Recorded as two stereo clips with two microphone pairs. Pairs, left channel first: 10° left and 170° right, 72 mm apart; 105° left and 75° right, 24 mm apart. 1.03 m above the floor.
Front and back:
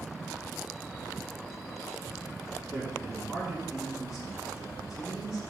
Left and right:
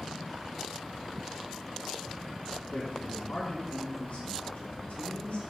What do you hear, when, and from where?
2.7 s a man speaking: 105° left, 3 m